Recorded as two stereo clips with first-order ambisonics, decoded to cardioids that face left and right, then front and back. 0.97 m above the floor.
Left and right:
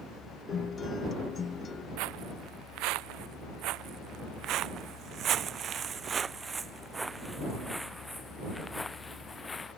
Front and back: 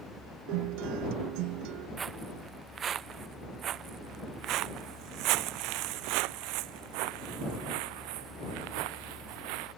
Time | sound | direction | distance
0.5 | a guitar | 160° left | ?
2.0 | footsteps | 110° right | ?